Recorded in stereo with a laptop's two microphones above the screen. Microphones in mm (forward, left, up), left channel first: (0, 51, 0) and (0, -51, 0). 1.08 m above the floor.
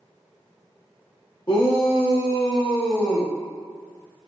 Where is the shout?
50° left (ahead or behind), 1.8 m; by 3.3 s 80° left, 2 m.